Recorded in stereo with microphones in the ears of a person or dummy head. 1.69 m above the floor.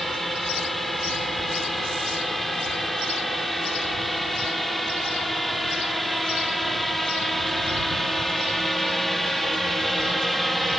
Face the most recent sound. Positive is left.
turn(degrees=0)  # may be behind; listen again after turning